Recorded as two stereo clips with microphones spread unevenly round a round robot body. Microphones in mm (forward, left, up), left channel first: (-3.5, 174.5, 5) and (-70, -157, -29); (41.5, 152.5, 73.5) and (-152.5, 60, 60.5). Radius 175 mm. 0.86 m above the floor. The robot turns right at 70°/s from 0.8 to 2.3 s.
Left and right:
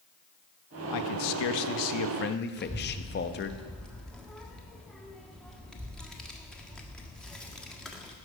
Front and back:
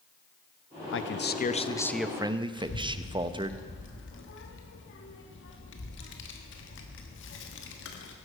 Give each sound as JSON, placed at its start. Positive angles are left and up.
{"t": 0.9, "sound": "a man speaking", "azimuth_deg": 40, "distance_m": 0.9}
{"t": 2.6, "sound": "a child speaking", "azimuth_deg": -10, "distance_m": 1.4}